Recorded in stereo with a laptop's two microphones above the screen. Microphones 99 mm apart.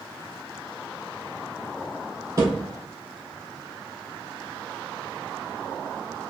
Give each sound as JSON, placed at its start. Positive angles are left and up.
{"t": 2.4, "sound": "a thud", "side_deg": -40, "distance_m": 1.6}